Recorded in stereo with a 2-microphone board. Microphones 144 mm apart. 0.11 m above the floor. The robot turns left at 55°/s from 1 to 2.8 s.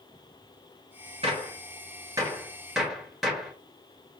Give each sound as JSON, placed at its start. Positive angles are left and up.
{"t": 1.2, "sound": "a gunshot", "side_deg": -45, "distance_m": 1.1}